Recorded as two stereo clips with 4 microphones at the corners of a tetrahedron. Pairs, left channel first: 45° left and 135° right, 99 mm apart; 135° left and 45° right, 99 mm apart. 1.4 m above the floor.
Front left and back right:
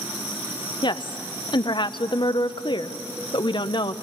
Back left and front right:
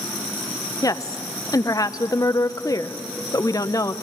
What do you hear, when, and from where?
0.8 s a woman speaking: 80° left, 0.7 m